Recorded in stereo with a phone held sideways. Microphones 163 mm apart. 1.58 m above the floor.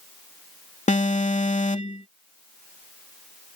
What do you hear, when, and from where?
0.9 s an alarm: 45° left (ahead or behind)